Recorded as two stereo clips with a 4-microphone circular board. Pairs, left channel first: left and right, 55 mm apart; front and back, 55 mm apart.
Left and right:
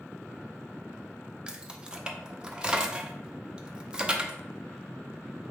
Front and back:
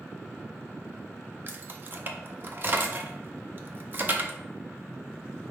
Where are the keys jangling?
155° right, 0.5 m.